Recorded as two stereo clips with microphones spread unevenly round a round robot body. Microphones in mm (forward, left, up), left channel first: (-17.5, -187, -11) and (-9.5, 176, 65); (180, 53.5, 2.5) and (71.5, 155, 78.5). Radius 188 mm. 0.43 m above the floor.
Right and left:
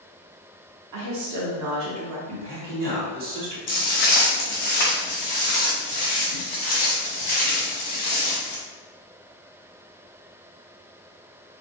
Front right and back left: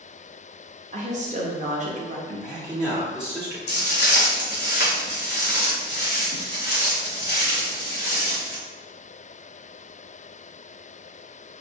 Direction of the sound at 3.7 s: 35° right.